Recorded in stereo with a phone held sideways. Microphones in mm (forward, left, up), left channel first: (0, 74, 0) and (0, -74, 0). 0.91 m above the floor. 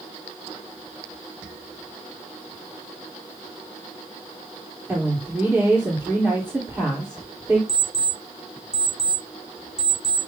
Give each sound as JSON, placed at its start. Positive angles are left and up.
{"t": 4.9, "sound": "a woman speaking", "side_deg": -10, "distance_m": 3.0}
{"t": 7.7, "sound": "an alarm clock", "side_deg": -45, "distance_m": 2.5}